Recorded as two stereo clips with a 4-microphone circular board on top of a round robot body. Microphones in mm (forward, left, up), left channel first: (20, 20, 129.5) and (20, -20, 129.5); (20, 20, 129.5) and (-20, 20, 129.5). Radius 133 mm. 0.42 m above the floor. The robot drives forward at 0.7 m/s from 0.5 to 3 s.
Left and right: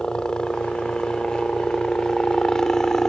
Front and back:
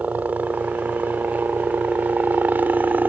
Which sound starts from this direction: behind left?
A helicopter, at 0.0 s.